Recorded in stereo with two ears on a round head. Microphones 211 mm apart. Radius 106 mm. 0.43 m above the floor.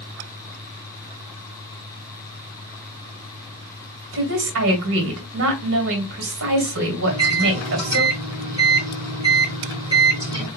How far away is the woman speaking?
About 2 m.